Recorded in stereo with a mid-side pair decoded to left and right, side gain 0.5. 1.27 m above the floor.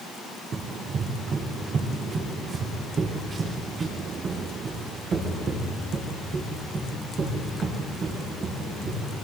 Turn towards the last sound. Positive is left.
turn(degrees=-50)